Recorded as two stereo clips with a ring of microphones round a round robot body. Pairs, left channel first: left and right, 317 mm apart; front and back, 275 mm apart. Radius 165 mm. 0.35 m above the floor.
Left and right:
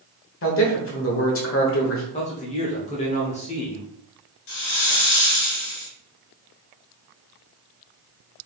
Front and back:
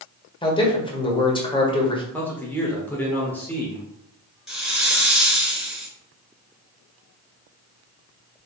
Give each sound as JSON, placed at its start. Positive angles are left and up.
{"t": 0.4, "sound": "a man speaking", "azimuth_deg": 65, "distance_m": 1.4}
{"t": 2.1, "sound": "a man speaking", "azimuth_deg": 70, "distance_m": 1.0}
{"t": 4.5, "sound": "a hiss", "azimuth_deg": 90, "distance_m": 1.9}